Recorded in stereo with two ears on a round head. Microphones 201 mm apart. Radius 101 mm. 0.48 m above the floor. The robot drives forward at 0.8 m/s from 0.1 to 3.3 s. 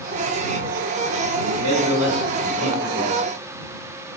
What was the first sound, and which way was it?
A man speaking, 70° right (ahead or behind).